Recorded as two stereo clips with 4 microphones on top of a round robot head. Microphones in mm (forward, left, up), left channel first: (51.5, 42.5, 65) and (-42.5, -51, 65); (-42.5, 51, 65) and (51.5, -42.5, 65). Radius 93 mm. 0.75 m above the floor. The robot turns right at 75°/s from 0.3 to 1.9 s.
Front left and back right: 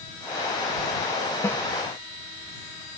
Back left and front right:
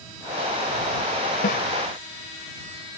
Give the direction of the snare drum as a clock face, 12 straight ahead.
8 o'clock.